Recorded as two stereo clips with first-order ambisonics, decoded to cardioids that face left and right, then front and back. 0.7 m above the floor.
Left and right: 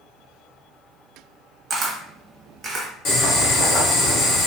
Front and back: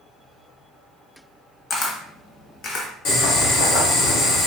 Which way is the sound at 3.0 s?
35° left.